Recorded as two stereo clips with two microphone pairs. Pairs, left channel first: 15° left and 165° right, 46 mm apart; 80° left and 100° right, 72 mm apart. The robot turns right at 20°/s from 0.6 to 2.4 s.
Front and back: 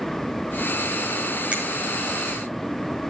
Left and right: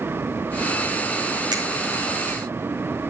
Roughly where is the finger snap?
Right.